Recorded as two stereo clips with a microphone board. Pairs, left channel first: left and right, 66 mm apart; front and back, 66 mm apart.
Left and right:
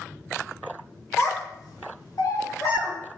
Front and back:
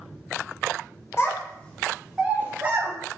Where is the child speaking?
45° left, 0.7 m; by 2.9 s 130° left, 1.0 m.